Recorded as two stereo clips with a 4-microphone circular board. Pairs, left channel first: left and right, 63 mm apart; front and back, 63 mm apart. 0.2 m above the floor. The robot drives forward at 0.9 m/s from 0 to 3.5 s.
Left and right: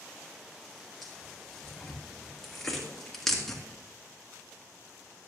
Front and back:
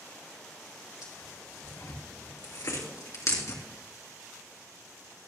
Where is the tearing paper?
5° left, 4.5 m.